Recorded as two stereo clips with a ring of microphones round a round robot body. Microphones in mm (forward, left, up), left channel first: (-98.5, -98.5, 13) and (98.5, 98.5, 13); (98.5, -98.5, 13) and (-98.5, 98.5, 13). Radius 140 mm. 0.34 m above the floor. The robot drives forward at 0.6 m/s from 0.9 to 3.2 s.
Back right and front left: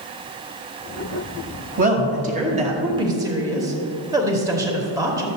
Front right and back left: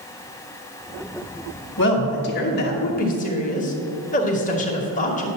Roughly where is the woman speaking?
Ahead.